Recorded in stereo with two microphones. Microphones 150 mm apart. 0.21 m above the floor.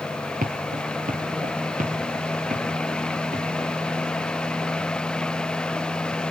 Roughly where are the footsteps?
Right.